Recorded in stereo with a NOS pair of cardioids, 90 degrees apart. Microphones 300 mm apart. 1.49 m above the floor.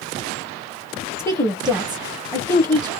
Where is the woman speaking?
10° left, 0.9 m.